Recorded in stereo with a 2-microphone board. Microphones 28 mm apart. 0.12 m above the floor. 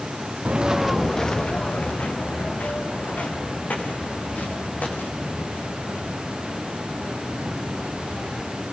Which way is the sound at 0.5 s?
40° right (ahead or behind).